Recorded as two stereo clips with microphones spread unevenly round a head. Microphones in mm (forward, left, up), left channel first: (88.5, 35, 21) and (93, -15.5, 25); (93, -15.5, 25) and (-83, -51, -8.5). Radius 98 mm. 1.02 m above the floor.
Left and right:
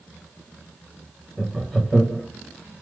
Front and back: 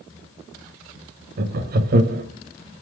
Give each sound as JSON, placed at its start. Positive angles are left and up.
{"t": 1.4, "sound": "laughter", "azimuth_deg": 180, "distance_m": 0.6}